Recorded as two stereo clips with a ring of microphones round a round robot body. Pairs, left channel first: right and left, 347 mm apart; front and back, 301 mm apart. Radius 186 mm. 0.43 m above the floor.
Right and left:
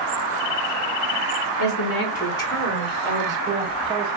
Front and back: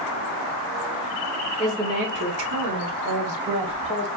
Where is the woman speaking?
85° right, 1.1 m; by 4.1 s 165° left, 3.5 m.